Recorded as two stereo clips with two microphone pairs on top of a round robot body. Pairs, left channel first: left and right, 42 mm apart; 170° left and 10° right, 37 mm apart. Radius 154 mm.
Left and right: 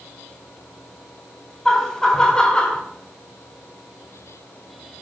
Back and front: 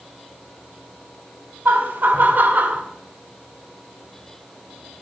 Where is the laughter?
15° left, 3.5 m; by 2.8 s 30° left, 3 m.